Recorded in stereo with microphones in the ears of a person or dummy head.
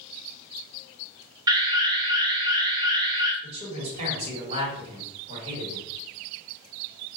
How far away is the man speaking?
About 1.7 m.